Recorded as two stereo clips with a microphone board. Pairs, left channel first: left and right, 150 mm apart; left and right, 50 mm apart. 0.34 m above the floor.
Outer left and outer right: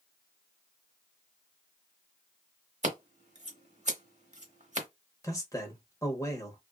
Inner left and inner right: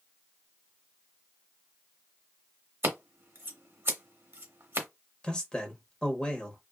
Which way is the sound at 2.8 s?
50° right (ahead or behind).